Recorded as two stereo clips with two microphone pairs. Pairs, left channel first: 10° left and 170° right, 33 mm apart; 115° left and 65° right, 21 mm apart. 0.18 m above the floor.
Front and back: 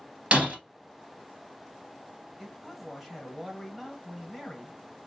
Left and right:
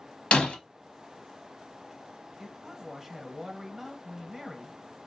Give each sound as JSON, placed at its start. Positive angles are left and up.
{"t": 0.3, "sound": "breaking glass", "azimuth_deg": 140, "distance_m": 1.5}
{"t": 2.4, "sound": "a man speaking", "azimuth_deg": -85, "distance_m": 1.0}